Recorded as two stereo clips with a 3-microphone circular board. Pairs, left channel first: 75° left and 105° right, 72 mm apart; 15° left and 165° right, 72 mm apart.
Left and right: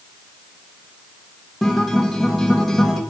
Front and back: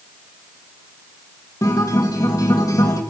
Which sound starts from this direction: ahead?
A guitar, at 1.6 s.